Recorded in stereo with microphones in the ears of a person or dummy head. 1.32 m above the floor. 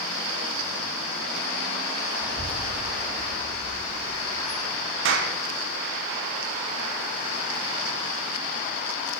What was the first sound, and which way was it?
A child speaking, 5° right (ahead or behind).